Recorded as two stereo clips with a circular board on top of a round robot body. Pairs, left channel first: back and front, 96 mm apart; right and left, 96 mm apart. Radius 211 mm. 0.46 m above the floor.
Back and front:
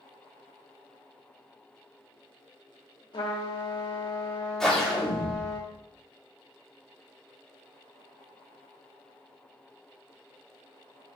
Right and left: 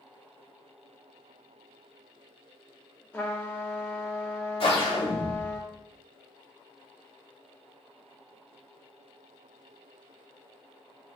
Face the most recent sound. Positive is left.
turn(degrees=-95)